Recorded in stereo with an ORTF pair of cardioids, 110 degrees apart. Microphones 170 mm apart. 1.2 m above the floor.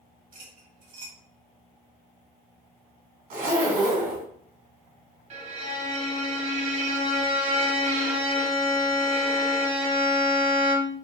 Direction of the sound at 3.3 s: 70° right.